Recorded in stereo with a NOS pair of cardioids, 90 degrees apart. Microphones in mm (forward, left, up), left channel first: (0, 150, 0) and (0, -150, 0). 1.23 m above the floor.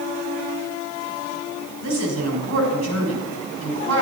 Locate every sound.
1.8 s a woman speaking: 60° right, 6 m